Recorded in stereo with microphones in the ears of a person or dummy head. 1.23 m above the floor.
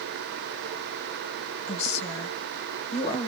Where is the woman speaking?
35° left (ahead or behind), 1.2 m.